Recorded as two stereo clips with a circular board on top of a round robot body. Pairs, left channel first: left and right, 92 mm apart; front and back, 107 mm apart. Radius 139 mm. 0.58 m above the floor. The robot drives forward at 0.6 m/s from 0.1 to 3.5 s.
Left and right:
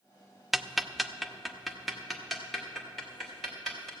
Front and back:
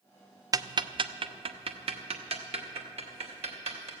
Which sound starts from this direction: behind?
Ticking, at 0.5 s.